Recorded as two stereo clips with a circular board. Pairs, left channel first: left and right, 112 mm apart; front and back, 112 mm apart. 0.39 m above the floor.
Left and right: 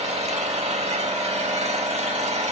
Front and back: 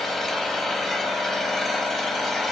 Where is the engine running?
90° right, 0.8 m.